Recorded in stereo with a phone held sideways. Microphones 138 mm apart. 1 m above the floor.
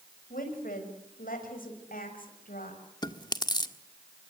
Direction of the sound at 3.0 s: 30° left (ahead or behind).